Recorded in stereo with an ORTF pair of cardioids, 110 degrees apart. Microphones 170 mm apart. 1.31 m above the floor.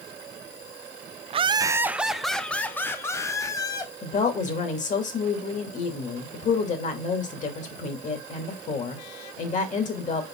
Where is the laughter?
35° right, 0.5 m; by 3.9 s 20° left, 1.6 m.